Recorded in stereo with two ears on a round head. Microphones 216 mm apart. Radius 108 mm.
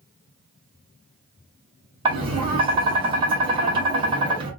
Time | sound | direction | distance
2.0 | tapping | 20° right (ahead or behind) | 1.5 m